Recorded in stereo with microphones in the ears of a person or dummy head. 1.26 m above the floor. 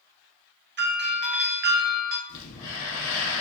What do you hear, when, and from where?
0.8 s a doorbell: 55° right (ahead or behind), 0.6 m
2.3 s breathing: 70° left (ahead or behind), 1.2 m